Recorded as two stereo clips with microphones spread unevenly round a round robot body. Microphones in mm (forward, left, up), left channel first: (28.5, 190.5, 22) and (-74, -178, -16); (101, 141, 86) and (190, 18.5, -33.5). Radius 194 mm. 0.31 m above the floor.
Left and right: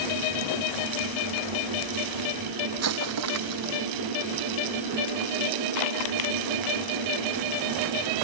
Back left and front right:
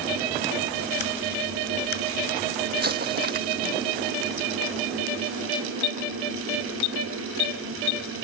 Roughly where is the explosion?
Ahead right.